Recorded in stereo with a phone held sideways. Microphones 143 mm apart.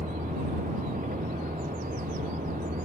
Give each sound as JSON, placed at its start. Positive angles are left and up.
{"t": 0.0, "sound": "a vehicle", "side_deg": -75}